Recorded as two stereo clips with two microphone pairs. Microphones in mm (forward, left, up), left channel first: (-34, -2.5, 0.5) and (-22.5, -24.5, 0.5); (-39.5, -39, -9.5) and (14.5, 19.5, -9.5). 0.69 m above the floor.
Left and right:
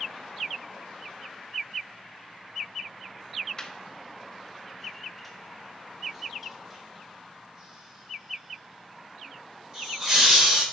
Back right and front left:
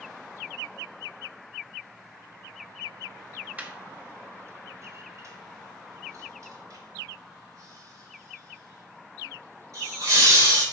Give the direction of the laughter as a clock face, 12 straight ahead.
9 o'clock.